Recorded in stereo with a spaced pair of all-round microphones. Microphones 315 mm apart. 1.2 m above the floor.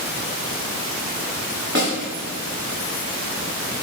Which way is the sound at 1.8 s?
35° right (ahead or behind).